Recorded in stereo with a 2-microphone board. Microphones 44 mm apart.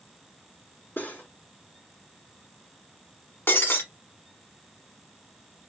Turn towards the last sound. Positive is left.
turn(degrees=65)  # may be behind; listen again after turning